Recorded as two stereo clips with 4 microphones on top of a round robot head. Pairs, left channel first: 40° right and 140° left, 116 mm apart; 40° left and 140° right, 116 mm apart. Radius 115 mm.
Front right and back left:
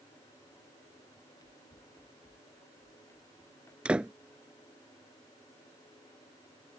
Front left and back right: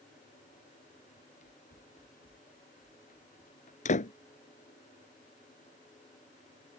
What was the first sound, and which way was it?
Running footsteps, 20° left.